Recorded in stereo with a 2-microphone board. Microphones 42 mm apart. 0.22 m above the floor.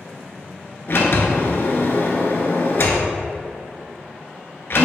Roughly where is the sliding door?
Left.